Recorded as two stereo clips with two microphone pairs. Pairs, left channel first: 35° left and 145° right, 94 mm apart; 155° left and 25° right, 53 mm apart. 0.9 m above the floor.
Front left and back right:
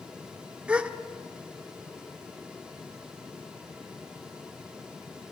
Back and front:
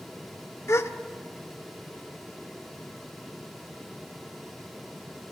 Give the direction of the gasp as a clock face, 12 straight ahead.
7 o'clock.